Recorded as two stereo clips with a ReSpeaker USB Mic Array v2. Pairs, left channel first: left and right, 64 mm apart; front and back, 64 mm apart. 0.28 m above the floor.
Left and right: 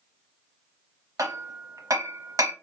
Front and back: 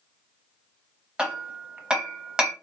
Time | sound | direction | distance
1.2 | hammering | 105° right | 0.8 m